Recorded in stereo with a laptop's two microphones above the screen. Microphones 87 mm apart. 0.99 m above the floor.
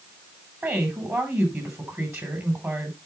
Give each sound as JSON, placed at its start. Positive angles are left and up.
{"t": 0.6, "sound": "a woman speaking", "side_deg": -30, "distance_m": 6.0}